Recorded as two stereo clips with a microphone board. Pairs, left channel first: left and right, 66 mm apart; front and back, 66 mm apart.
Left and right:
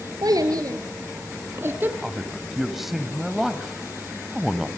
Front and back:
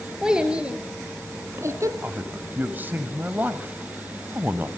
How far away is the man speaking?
About 1.1 m.